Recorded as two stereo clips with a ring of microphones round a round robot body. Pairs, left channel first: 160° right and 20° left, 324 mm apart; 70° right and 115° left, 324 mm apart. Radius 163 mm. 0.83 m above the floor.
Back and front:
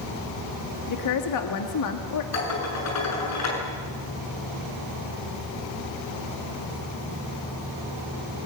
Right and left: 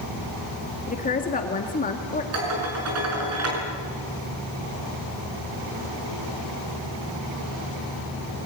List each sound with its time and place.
0.9 s a woman speaking: 130° right, 1.7 m
2.3 s dishes clattering: 160° left, 7 m